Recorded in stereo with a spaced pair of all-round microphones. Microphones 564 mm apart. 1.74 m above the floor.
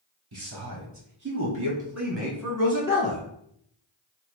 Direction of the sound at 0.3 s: 50° right (ahead or behind).